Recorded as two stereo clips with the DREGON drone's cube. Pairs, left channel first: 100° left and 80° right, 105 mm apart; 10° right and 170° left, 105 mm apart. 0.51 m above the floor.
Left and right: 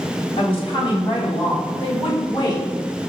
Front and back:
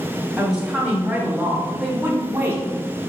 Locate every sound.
0.4 s a woman speaking: 90° left, 1.9 m; by 2.7 s 120° left, 1.1 m